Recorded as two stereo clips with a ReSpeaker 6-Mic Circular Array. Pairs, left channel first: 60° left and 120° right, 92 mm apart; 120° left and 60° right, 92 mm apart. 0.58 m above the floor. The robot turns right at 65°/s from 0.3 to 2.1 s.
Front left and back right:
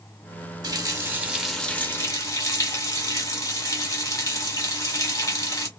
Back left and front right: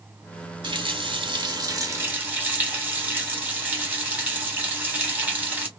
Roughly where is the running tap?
Right.